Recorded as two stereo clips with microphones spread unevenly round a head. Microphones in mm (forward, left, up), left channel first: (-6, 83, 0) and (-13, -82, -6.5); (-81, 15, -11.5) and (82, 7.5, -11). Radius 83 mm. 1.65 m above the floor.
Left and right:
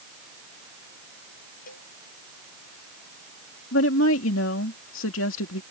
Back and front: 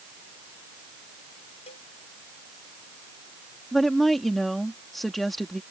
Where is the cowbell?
125° left.